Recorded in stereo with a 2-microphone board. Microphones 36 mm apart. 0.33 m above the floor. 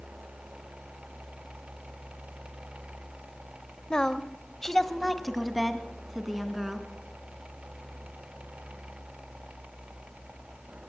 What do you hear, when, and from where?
3.9 s a woman speaking: 25° left (ahead or behind), 1.0 m; by 6.9 s 5° right (ahead or behind), 3.5 m